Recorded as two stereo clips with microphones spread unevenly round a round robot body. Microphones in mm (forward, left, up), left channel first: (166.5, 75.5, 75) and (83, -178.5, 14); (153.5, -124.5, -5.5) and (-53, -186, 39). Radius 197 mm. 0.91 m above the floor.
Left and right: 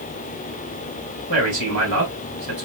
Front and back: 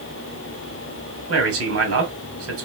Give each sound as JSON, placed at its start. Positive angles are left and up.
{"t": 1.3, "sound": "a man speaking", "azimuth_deg": -150, "distance_m": 2.5}